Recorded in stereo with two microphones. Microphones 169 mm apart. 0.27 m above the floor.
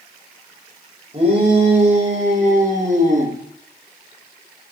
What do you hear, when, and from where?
1.1 s a shout: 35° right (ahead or behind), 9.5 m; by 3.4 s 45° right (ahead or behind), 10 m